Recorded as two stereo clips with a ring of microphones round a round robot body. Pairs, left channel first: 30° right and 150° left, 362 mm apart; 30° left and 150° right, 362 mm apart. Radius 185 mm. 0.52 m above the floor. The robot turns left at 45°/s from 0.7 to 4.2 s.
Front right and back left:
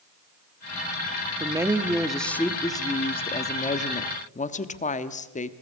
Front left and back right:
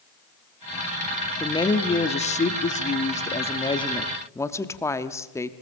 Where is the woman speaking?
90° left, 1.1 m; by 5.5 s 35° right, 1.1 m.